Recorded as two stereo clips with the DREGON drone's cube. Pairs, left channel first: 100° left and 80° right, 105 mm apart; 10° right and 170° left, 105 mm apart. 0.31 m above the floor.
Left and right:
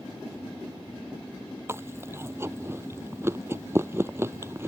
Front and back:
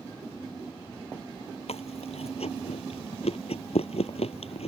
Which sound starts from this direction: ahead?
Chewing, at 1.7 s.